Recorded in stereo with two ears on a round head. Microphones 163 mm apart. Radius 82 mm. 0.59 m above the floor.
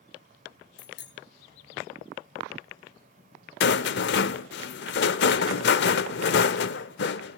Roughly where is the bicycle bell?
Left.